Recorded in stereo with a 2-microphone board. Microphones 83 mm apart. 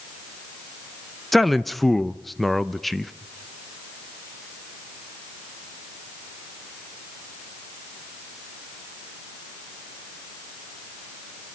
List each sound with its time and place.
1.3 s a man speaking: centre (ahead or behind), 0.7 m